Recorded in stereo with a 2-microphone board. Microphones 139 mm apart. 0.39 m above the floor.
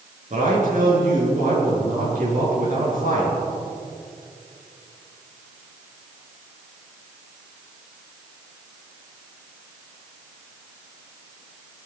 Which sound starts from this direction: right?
A man speaking, at 0.3 s.